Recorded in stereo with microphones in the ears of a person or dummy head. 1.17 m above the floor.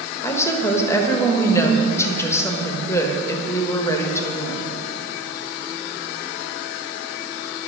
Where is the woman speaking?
10° left (ahead or behind), 1.3 m.